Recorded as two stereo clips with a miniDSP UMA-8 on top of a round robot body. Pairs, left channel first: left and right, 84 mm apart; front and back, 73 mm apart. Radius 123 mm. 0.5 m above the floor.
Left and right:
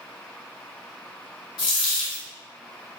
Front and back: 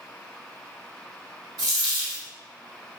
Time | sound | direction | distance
1.6 | a dropped coin | 130° left | 0.7 m